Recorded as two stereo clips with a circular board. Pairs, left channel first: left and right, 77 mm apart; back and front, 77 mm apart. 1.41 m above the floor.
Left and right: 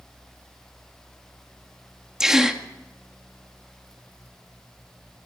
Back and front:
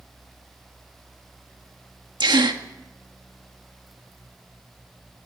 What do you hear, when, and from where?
2.2 s a gasp: 10° right, 1.9 m